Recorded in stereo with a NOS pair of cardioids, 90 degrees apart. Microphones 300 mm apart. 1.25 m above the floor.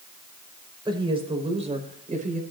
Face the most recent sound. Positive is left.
turn(degrees=-25)